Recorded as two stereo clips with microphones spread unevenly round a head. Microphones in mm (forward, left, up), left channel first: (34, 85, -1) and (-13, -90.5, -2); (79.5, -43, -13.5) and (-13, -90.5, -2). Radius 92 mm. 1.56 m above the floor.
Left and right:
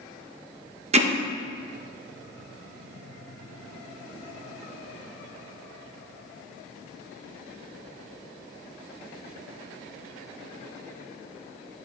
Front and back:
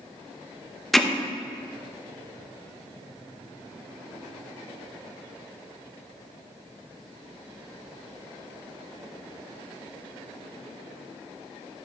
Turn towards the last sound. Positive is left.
turn(degrees=-70)